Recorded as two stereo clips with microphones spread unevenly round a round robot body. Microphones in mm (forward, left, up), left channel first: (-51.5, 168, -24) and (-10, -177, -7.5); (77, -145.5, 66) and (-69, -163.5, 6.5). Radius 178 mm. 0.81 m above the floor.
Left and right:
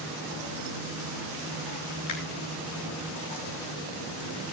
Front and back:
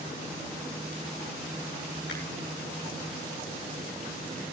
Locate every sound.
2.1 s a finger snap: 55° left, 6.5 m